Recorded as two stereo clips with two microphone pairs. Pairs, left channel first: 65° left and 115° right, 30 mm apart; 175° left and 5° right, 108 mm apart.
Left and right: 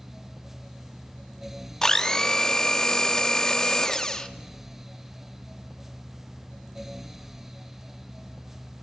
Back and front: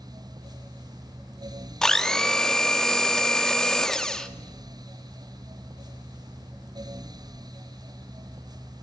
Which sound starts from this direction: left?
A blender, at 1.8 s.